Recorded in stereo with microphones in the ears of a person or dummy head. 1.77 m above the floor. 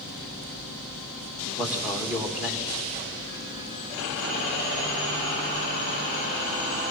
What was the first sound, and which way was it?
A man speaking, 5° right (ahead or behind).